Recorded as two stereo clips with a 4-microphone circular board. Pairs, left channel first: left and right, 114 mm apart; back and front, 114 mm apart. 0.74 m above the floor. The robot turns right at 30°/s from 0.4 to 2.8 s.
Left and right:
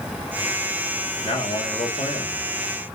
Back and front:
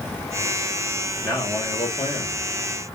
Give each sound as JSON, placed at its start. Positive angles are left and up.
{"t": 1.2, "sound": "a man speaking", "azimuth_deg": 95, "distance_m": 1.3}